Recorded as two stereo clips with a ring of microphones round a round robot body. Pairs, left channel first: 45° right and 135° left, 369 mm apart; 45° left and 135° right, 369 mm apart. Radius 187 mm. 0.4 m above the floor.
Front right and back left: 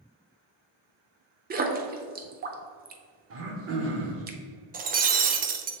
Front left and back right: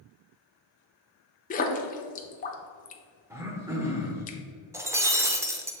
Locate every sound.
1.5 s a splash: 95° left, 0.7 m
3.3 s throat clearing: 145° left, 1.2 m
4.7 s breaking glass: 155° left, 0.6 m